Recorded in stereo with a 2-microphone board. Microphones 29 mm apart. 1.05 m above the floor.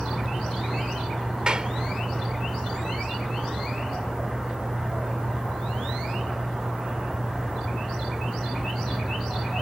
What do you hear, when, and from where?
1.5 s a clap: 35° right (ahead or behind)